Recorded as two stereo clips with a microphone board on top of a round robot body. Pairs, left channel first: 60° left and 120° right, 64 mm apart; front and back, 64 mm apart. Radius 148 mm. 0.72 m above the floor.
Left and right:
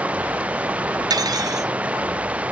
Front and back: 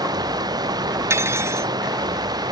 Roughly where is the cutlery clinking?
Behind right.